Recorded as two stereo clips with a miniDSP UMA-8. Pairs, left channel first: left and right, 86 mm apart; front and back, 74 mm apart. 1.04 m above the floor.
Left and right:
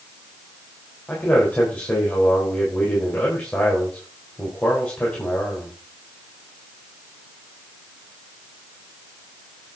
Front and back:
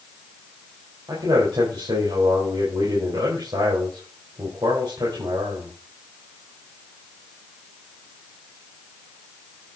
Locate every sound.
1.1 s a man speaking: 165° left, 4 m